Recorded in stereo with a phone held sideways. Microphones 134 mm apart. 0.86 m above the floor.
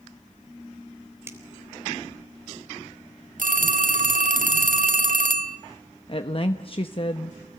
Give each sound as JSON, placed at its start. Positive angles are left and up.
{"t": 1.3, "sound": "a finger snap", "side_deg": -20, "distance_m": 3.5}
{"t": 3.4, "sound": "a phone ringing", "side_deg": -85, "distance_m": 1.4}
{"t": 6.1, "sound": "a woman speaking", "side_deg": 40, "distance_m": 1.0}